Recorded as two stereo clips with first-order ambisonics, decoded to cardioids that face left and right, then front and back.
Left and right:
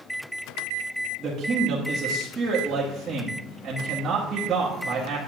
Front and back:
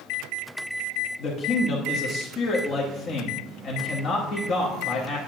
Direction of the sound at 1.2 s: 25° right.